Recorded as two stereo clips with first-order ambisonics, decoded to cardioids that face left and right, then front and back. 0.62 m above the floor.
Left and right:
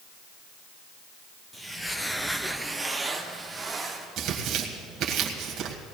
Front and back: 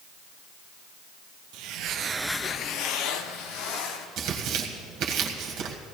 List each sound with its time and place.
1.5 s footsteps: 175° left, 1.1 m; by 4.1 s 5° right, 2.5 m
4.2 s tearing paper: 140° right, 1.6 m